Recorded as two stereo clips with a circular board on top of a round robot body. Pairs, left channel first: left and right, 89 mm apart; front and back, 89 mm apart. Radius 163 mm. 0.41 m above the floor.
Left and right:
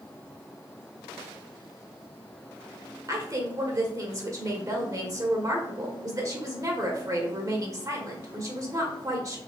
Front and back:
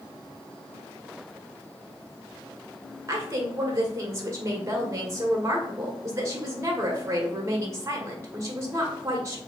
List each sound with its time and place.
3.1 s a woman speaking: 130° right, 1.5 m